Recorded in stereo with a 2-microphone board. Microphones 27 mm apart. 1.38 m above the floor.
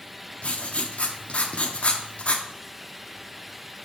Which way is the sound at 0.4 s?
40° left (ahead or behind).